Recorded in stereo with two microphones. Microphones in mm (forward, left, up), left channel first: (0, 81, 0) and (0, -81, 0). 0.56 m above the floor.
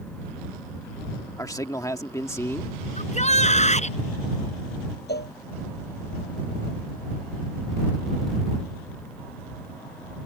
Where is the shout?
45° left (ahead or behind).